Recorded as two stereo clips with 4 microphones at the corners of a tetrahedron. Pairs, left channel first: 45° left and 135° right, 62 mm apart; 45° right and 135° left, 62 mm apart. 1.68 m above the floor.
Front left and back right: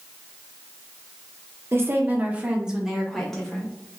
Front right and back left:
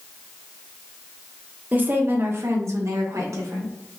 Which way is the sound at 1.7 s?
170° right.